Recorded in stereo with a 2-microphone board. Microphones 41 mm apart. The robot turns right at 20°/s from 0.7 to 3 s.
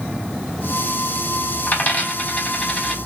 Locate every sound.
1.7 s a dropped coin: 45° left (ahead or behind), 1.5 m; by 3.0 s 20° left (ahead or behind), 1.5 m